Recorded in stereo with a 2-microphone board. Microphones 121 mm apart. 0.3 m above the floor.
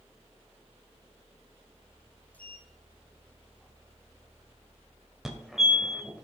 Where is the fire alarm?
Centre (ahead or behind), 1.8 m.